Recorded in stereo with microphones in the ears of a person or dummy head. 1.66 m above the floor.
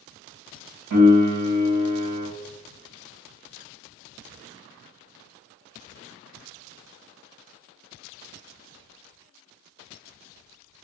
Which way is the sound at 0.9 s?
70° right (ahead or behind).